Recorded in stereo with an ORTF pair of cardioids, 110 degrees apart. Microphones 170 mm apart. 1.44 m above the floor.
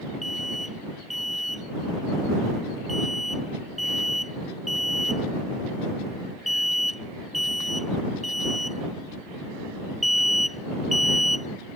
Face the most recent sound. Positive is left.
turn(degrees=0)